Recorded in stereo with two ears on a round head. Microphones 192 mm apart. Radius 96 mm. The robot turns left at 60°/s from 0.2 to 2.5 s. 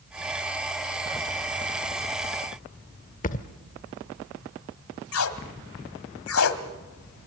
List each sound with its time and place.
3.2 s a thud: 35° left (ahead or behind), 1.0 m
5.1 s tape being pulled: 70° left (ahead or behind), 1.6 m